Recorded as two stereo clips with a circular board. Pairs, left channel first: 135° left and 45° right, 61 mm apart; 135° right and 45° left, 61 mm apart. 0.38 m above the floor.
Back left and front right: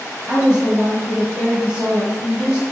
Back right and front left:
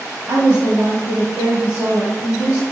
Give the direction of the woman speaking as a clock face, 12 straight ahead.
11 o'clock.